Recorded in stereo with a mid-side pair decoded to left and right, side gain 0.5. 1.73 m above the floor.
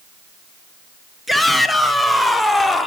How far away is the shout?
About 3 m.